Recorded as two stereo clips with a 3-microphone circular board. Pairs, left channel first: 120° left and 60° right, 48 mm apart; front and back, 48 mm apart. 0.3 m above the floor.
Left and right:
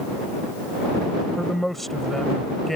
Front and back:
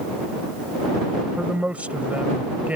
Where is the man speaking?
160° right.